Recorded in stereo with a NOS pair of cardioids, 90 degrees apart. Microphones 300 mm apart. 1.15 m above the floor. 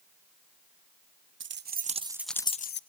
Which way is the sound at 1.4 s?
40° right.